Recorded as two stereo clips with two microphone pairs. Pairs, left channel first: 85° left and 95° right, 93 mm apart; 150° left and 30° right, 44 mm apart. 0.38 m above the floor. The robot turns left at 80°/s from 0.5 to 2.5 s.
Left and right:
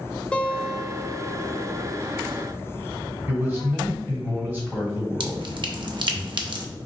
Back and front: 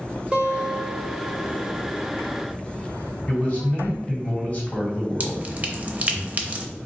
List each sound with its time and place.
0.3 s a guitar: 15° left, 0.7 m; by 2.0 s 105° right, 0.7 m
3.3 s a man speaking: 160° right, 1.8 m
5.2 s dripping: 75° right, 0.5 m